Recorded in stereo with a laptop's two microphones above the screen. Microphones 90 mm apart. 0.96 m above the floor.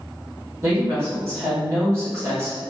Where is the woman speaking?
35° right (ahead or behind), 1.3 m.